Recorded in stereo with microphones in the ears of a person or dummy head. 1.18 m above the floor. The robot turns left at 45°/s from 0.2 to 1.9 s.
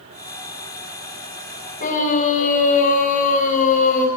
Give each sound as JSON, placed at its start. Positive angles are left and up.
{"t": 1.8, "sound": "a scream", "side_deg": 50, "distance_m": 6.0}